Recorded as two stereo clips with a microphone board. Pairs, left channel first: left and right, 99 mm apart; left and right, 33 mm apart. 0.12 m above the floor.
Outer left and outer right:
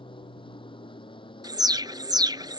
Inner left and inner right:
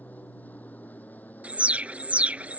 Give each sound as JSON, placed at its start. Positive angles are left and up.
{"t": 0.0, "sound": "an aircraft", "side_deg": 60}
{"t": 1.4, "sound": "an alarm", "side_deg": -45}